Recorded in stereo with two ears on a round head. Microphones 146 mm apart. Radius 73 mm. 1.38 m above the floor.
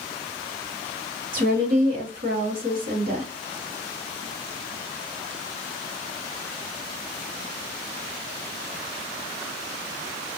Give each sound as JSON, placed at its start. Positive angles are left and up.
{"t": 1.3, "sound": "a woman speaking", "side_deg": -55, "distance_m": 1.3}